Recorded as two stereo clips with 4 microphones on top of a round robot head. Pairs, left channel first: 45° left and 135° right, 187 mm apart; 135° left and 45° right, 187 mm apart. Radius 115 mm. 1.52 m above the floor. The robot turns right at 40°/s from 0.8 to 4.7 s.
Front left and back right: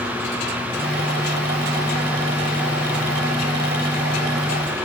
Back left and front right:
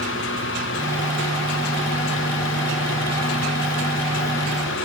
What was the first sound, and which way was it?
Only background noise.